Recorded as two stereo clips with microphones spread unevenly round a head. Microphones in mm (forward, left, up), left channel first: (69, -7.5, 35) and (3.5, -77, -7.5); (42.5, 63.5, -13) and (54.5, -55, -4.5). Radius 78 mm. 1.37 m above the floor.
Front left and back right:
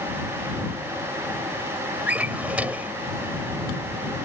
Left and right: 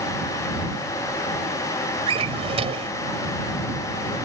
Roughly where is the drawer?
Ahead right.